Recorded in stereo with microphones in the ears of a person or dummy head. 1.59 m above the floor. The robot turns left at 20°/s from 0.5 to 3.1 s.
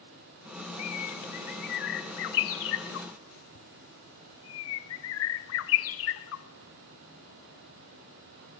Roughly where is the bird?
Left.